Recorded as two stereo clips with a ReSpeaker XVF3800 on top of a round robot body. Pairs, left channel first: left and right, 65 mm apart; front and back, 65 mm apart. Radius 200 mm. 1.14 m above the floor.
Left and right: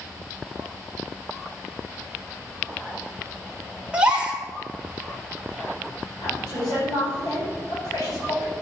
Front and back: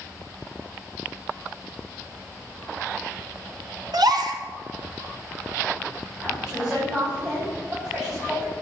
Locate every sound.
3.9 s a gasp: 165° right, 1.7 m
6.2 s a woman speaking: 95° left, 5.5 m